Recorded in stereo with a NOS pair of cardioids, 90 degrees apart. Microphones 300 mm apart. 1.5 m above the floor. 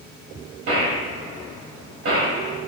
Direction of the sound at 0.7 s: 50° right.